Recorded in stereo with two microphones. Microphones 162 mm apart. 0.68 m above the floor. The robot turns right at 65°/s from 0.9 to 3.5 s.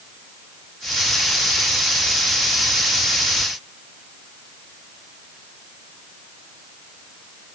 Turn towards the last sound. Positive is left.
No sound to turn to.